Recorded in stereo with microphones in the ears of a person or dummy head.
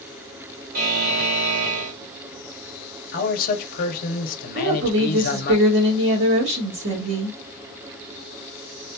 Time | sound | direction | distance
0.7 | a buzzer | 55° right (ahead or behind) | 0.8 m
3.1 | a man speaking | 45° left (ahead or behind) | 0.9 m
4.5 | a woman speaking | 60° right (ahead or behind) | 1.6 m